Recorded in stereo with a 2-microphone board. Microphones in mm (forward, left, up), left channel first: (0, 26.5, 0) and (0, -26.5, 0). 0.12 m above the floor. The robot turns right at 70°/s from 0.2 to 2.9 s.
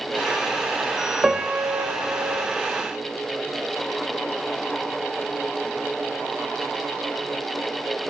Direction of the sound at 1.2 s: 170° right.